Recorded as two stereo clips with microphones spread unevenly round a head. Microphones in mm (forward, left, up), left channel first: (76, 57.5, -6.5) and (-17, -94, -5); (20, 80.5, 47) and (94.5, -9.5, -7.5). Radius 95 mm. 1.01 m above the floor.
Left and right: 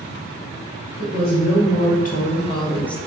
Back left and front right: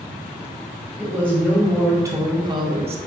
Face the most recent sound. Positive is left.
turn(degrees=-30)